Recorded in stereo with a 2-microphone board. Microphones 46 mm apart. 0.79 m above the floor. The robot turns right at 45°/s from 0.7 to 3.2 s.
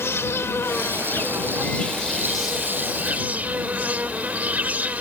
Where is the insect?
105° left; by 5.0 s 140° right.